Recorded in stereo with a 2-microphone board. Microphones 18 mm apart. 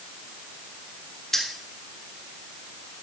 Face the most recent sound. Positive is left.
turn(degrees=25)  # may be behind; listen again after turning